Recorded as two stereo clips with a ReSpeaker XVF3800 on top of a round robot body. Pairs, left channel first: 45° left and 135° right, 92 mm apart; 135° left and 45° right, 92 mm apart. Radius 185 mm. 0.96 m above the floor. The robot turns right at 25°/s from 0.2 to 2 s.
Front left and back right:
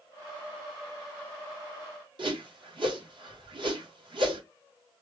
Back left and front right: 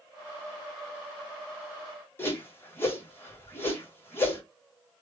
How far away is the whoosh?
About 1.4 m.